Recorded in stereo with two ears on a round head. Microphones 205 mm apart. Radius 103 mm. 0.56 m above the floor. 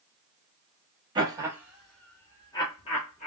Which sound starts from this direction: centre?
Laughter, at 1.1 s.